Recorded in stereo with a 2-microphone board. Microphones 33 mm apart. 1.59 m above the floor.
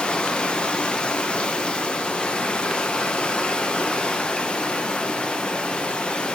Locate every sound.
0.0 s running water: 30° left (ahead or behind), 1.0 m